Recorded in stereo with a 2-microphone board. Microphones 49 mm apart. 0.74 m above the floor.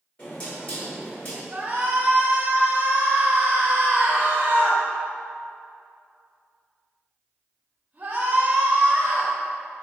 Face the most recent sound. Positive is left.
turn(degrees=-30)  # may be behind; listen again after turning